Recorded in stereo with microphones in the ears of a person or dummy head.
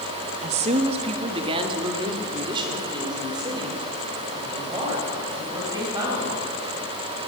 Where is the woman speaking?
40° right (ahead or behind), 1.8 m; by 6.4 s 20° right (ahead or behind), 9.5 m.